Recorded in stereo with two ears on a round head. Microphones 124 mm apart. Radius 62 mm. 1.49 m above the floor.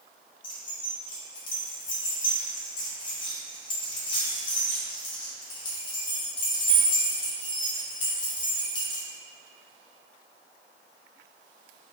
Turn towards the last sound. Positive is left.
turn(degrees=35)  # may be behind; listen again after turning